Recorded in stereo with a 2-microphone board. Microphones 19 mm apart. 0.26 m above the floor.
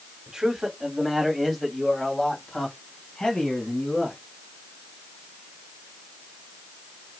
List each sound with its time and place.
0.3 s a man speaking: 30° right (ahead or behind), 1.7 m; by 4.2 s 60° left (ahead or behind), 3 m